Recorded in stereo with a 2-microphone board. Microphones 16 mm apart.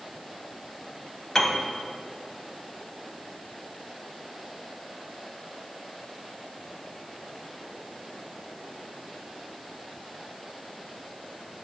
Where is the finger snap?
No finger snap in this recording.